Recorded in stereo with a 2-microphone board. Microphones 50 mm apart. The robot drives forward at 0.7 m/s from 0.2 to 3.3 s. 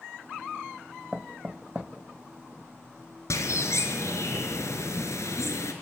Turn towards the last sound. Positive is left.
turn(degrees=70)  # may be behind; listen again after turning